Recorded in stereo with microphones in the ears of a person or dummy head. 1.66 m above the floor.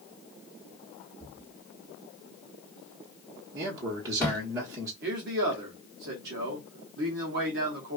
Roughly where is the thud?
Centre.